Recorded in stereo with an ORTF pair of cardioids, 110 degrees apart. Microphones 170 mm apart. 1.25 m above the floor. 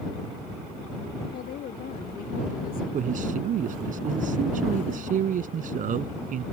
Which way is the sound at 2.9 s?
55° right.